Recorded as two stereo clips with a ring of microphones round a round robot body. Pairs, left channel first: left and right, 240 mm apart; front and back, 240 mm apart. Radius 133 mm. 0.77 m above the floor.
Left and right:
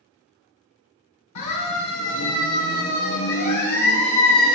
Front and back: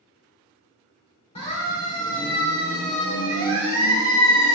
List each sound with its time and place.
1.4 s a siren: 70° left, 6 m; by 4.6 s 30° left, 6 m